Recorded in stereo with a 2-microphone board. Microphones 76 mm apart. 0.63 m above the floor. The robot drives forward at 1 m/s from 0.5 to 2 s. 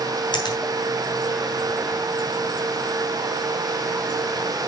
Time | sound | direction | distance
0.3 | a finger snap | 80° left | 3 m